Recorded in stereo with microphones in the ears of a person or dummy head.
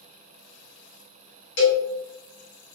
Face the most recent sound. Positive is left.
turn(degrees=60)  # may be behind; listen again after turning